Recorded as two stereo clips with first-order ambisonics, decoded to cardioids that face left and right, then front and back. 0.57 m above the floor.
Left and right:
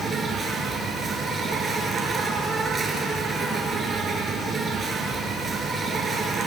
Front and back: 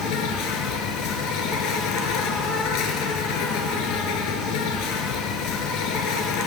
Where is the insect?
20° right, 1.3 m.